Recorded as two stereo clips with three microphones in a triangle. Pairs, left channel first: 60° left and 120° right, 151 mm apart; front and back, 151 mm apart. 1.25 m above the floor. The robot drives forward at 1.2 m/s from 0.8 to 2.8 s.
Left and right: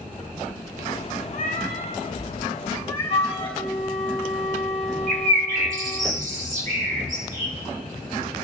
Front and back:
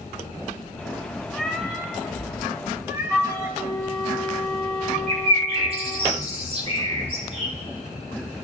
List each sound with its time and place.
1.3 s a cat meowing: 85° left, 3.5 m; by 3.6 s 110° left, 4 m
3.1 s a flute: 90° left, 1.9 m
5.1 s a bird: 140° right, 2 m